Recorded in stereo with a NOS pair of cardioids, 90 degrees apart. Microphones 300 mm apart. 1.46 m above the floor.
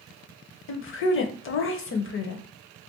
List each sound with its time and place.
0.7 s a woman speaking: 45° left, 0.6 m